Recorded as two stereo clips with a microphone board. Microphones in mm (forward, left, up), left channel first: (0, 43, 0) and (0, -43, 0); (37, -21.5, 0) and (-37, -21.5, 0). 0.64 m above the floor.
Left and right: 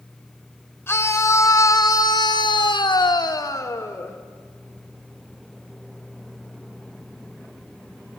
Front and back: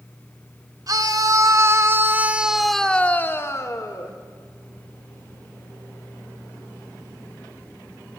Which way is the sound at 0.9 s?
150° left.